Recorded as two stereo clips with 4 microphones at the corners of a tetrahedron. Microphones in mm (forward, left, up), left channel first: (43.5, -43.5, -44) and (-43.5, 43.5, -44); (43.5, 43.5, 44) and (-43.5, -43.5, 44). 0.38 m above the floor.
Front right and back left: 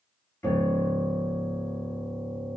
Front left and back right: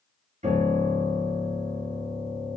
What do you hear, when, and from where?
0.4 s a piano: 120° right, 1.4 m